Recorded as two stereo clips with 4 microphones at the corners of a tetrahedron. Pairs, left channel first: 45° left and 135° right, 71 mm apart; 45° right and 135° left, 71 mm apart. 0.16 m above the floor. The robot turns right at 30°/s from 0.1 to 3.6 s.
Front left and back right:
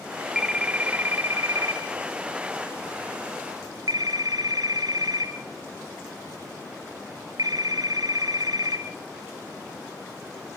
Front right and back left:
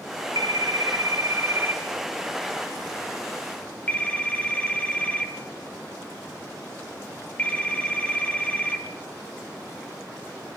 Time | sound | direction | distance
0.3 | a phone ringing | 150° left | 2.5 m